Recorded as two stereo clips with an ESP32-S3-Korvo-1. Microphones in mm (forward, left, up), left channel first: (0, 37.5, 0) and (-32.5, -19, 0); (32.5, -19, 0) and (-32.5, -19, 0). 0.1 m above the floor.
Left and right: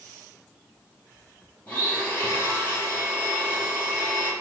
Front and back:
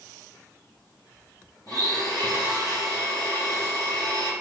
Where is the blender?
Straight ahead, 3 m.